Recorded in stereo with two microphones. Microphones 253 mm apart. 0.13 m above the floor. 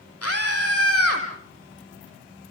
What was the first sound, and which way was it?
A scream, 65° left (ahead or behind).